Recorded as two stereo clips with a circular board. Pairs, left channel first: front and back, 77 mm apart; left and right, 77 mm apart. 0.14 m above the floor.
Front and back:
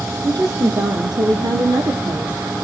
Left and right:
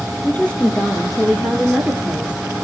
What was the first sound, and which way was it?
A woman speaking, 155° left.